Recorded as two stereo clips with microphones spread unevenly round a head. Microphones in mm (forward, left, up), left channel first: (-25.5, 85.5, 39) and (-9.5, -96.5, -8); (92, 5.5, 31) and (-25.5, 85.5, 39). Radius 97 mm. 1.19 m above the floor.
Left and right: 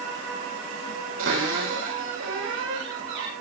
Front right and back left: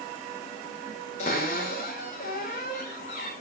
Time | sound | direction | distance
1.2 | a cupboard door | 85° right | 6 m